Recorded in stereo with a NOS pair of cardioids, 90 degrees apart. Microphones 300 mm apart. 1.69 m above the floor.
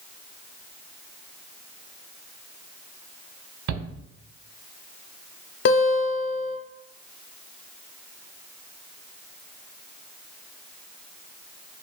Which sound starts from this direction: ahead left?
A guitar, at 5.7 s.